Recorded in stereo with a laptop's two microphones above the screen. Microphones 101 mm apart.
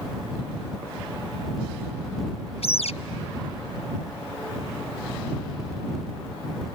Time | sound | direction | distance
2.6 | a bird | 80° left | ?